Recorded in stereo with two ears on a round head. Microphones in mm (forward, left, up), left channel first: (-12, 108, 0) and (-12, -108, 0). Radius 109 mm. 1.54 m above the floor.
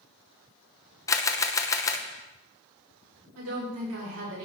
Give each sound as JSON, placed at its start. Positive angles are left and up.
{"t": 1.1, "sound": "a camera shutter", "side_deg": 15, "distance_m": 0.8}
{"t": 3.4, "sound": "a woman speaking", "side_deg": -70, "distance_m": 6.0}